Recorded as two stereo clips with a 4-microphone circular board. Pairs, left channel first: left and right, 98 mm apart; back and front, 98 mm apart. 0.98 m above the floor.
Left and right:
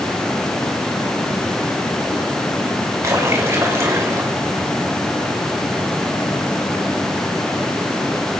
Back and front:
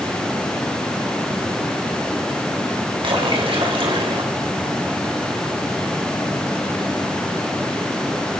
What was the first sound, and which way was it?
A splash, 30° right.